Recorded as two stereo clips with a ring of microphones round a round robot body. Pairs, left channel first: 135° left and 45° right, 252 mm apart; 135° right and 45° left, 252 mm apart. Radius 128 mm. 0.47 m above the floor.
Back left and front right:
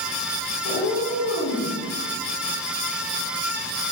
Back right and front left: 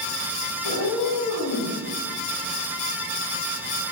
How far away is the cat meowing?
About 1.3 m.